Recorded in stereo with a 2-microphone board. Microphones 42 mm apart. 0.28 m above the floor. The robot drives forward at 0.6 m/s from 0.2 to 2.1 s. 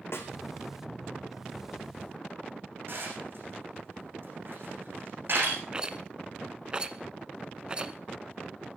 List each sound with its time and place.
0.1 s a snare drum: 75° left (ahead or behind), 3 m; by 0.3 s 70° left (ahead or behind), 3 m
2.9 s dishes clattering: 55° right (ahead or behind), 9.5 m
5.7 s a rattle: 20° right (ahead or behind), 0.8 m